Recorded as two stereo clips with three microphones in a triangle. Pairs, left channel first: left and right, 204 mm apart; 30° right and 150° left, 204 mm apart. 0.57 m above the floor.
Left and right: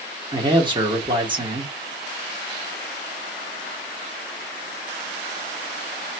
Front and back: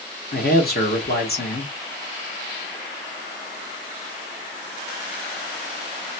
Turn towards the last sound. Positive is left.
turn(degrees=-30)